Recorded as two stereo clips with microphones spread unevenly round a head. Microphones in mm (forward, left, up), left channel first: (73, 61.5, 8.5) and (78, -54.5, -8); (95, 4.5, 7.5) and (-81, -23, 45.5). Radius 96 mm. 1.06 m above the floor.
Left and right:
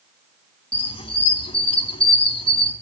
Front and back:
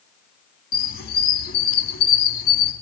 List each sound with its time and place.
0.7 s a squeak: 55° left, 2.5 m